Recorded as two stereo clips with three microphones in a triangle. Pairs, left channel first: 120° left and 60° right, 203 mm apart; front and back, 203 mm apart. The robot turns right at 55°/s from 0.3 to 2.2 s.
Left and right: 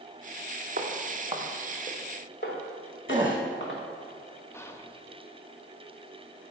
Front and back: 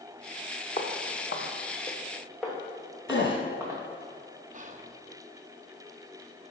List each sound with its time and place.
0.8 s footsteps: 50° right, 1.5 m; by 3.8 s 105° left, 3.5 m
3.1 s a gasp: 5° left, 1.8 m
4.5 s whispering: 170° right, 0.6 m